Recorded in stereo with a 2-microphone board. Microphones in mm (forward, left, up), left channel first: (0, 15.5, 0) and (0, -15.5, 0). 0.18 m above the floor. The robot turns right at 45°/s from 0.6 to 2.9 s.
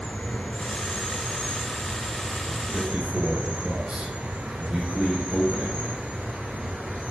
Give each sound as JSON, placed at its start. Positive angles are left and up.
{"t": 0.0, "sound": "an insect", "azimuth_deg": 120, "distance_m": 5.0}
{"t": 2.7, "sound": "a man speaking", "side_deg": -15, "distance_m": 6.5}